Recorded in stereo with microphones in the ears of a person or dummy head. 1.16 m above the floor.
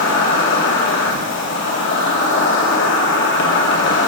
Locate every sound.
0.0 s an insect: 65° left (ahead or behind), 2.5 m